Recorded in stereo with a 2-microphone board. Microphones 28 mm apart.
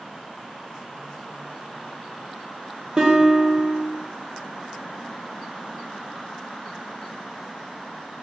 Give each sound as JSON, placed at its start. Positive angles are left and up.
{"t": 3.0, "sound": "a guitar", "side_deg": -35, "distance_m": 0.7}